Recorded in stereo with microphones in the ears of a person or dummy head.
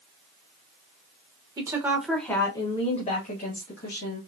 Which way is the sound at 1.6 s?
20° right (ahead or behind).